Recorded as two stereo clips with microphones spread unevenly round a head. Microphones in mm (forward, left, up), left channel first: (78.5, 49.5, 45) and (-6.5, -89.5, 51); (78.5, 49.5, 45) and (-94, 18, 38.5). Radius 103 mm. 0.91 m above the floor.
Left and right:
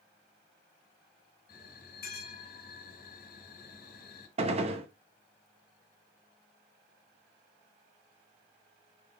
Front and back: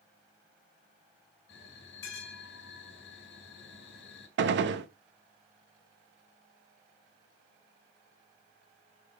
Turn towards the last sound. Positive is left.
turn(degrees=-175)